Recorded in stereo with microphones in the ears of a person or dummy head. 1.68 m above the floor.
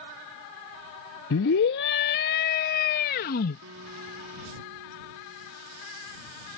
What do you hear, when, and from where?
1.3 s a scream: 75° left (ahead or behind); by 3.6 s 60° left (ahead or behind)
3.6 s a guitar: 80° right